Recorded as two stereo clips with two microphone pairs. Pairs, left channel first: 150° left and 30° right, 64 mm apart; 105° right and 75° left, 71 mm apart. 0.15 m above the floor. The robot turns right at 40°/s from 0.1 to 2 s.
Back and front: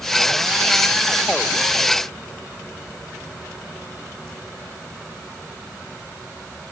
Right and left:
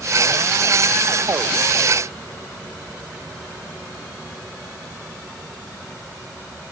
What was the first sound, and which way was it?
Only background noise.